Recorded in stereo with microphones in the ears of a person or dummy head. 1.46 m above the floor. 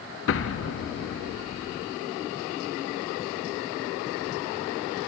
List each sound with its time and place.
0.3 s an explosion: 60° left (ahead or behind), 0.5 m